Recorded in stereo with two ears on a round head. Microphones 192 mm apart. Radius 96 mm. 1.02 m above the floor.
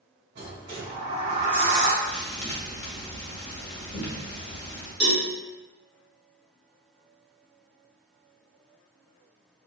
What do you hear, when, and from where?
0.3 s a sliding door: 50° right (ahead or behind), 1.6 m
2.0 s a thud: 30° left (ahead or behind), 1.1 m
5.0 s a cowbell: 50° right (ahead or behind), 1.5 m